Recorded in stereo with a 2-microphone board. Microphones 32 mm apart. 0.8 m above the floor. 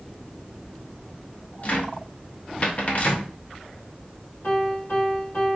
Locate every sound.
1.6 s a cupboard door: 50° left (ahead or behind), 0.9 m
4.4 s a piano: 80° left, 2 m